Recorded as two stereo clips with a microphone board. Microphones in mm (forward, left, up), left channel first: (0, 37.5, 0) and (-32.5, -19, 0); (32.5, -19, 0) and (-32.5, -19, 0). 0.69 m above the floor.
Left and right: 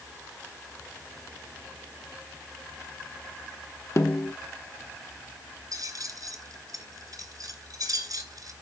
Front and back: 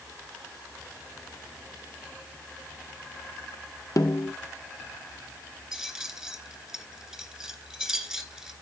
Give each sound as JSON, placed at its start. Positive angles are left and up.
{"t": 4.0, "sound": "a snare drum", "azimuth_deg": 25, "distance_m": 0.9}
{"t": 5.7, "sound": "keys jangling", "azimuth_deg": -100, "distance_m": 2.5}